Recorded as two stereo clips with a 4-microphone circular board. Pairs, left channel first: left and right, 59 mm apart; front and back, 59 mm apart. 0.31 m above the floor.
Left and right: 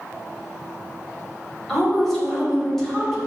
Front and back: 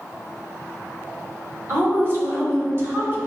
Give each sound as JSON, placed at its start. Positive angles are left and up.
{"t": 1.7, "sound": "a woman speaking", "azimuth_deg": 170, "distance_m": 1.1}